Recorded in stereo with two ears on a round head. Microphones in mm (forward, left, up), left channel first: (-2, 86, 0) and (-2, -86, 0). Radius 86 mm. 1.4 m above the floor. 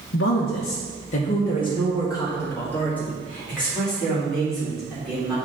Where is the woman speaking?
65° left (ahead or behind), 0.7 m; by 5.3 s centre (ahead or behind), 3.5 m.